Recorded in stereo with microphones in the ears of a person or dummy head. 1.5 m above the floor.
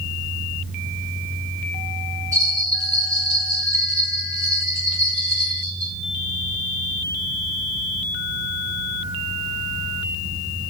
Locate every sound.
2.3 s a bell: 20° right (ahead or behind), 3.5 m